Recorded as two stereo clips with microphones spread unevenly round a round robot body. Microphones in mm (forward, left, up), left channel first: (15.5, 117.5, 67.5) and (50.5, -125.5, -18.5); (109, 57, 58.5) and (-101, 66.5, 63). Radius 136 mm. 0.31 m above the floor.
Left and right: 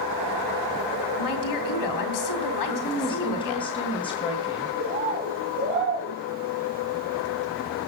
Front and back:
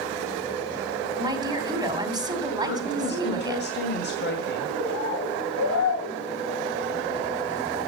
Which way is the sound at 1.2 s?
110° left.